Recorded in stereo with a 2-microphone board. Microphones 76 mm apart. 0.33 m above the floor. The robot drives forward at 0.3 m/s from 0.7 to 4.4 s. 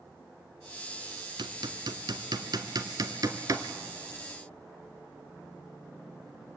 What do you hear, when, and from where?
1.4 s hammering: 85° right, 0.9 m; by 3.7 s 50° right (ahead or behind), 1.2 m